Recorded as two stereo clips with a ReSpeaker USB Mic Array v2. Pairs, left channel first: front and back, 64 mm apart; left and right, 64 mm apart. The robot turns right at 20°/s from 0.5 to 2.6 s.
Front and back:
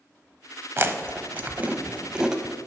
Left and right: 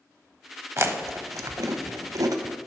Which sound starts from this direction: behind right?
Chewing, at 0.8 s.